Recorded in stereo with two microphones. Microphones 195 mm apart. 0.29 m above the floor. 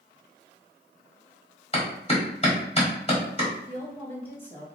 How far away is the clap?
About 1.2 m.